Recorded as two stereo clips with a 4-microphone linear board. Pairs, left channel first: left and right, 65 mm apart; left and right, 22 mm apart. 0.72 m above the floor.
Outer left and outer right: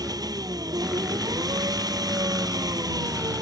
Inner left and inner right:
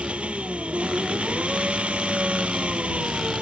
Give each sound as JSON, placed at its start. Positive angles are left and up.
{"t": 0.0, "sound": "an engine running", "side_deg": -85}